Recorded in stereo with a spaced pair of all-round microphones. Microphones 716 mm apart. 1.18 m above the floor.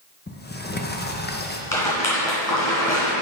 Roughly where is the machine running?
I don't hear a machine running.